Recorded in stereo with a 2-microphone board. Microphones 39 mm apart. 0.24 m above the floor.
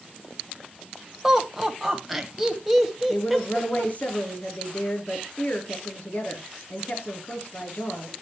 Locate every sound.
1.2 s laughter: 5° right (ahead or behind), 1.5 m
3.1 s a woman speaking: 45° left (ahead or behind), 3 m